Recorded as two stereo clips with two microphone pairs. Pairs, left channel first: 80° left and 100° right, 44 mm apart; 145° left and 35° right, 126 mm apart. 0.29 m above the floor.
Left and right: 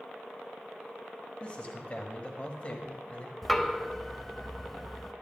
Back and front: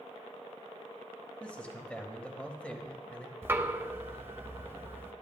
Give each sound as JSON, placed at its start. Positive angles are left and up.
{"t": 1.4, "sound": "a man speaking", "azimuth_deg": 75, "distance_m": 1.2}
{"t": 3.4, "sound": "knocking", "azimuth_deg": -10, "distance_m": 0.6}